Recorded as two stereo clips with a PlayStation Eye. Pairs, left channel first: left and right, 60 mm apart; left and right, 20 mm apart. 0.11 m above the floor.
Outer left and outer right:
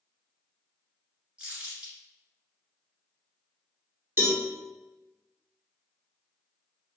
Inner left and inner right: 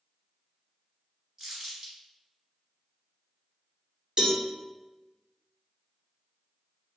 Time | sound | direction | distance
1.4 | crumpling | 20° right (ahead or behind) | 1.5 m
4.2 | a cowbell | 40° right (ahead or behind) | 1.3 m